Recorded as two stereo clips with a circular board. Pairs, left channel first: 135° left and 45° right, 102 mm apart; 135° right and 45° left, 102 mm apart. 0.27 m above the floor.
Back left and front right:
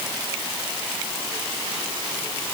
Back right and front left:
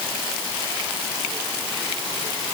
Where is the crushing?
No crushing in this recording.